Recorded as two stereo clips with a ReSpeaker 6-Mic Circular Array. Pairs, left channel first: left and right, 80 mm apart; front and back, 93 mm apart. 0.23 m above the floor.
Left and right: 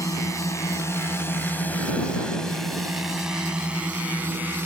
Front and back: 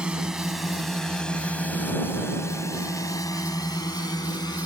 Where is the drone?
100° left; by 4.7 s 25° right.